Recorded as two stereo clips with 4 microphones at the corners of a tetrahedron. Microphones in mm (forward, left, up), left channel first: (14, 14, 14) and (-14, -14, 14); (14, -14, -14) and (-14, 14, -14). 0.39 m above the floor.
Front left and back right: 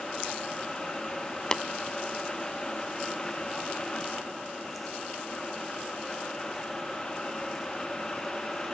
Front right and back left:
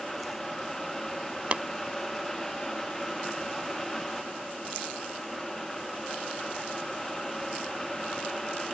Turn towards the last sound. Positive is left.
turn(degrees=105)